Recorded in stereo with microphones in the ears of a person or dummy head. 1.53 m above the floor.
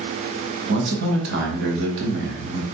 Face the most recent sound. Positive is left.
turn(degrees=-65)  # may be behind; listen again after turning